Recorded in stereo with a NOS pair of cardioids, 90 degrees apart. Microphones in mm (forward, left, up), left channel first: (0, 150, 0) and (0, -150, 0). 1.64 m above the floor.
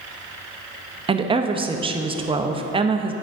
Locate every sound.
1.1 s a woman speaking: 20° right, 0.6 m